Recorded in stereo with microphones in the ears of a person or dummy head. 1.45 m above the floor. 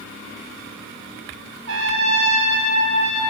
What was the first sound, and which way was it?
A trumpet, 70° right (ahead or behind).